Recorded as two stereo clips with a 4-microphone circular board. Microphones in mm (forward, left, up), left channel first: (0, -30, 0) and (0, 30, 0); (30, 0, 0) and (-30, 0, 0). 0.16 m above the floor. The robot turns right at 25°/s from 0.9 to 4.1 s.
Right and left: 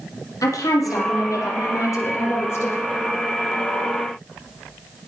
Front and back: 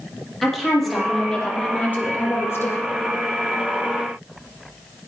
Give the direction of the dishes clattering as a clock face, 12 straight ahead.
I don't hear dishes clattering.